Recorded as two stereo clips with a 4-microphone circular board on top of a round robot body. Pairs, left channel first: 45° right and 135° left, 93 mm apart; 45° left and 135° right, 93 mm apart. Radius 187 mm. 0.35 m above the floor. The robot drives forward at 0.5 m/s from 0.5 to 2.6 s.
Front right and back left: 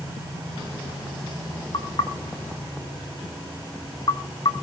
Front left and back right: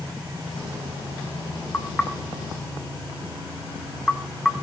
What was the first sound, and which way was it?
Knocking, 25° right.